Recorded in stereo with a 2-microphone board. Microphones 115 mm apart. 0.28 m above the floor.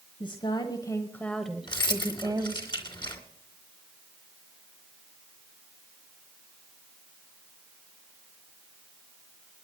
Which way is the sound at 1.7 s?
40° left (ahead or behind).